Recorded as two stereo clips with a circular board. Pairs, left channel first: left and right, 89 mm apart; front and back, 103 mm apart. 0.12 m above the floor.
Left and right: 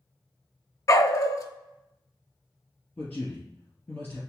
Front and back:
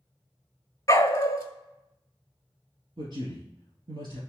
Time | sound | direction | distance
0.9 | a dog barking | 50° left | 0.6 m
3.0 | a man speaking | 155° left | 1.8 m